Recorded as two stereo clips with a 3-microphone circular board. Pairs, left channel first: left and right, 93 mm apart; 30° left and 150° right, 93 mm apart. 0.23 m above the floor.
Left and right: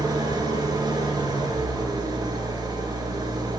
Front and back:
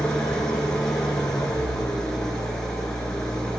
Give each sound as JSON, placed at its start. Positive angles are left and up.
{"t": 0.0, "sound": "an engine running", "azimuth_deg": -50, "distance_m": 1.7}